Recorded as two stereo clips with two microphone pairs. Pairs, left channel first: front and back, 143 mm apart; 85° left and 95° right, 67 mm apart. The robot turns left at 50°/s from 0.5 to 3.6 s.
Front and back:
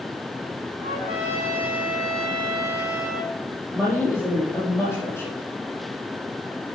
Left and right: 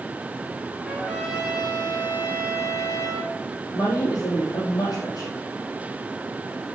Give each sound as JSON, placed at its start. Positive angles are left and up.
{"t": 0.8, "sound": "a trumpet", "azimuth_deg": -155, "distance_m": 7.5}
{"t": 3.7, "sound": "a woman speaking", "azimuth_deg": 75, "distance_m": 6.0}